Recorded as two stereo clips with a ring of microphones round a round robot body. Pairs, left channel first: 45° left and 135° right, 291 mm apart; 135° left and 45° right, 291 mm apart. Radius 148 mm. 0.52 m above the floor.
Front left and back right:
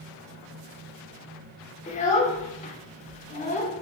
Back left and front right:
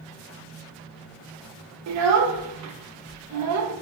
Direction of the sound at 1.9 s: 20° right.